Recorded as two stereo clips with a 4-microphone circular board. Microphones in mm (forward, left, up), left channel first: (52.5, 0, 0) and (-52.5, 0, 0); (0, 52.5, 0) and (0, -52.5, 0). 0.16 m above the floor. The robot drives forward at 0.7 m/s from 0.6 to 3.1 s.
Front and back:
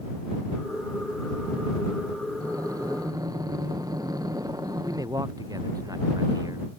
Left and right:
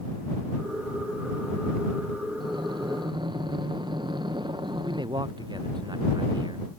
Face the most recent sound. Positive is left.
turn(degrees=-130)